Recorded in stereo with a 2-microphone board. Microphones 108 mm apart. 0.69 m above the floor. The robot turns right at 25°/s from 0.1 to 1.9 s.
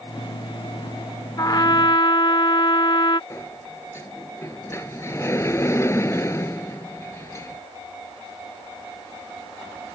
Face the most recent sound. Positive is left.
turn(degrees=25)  # may be behind; listen again after turning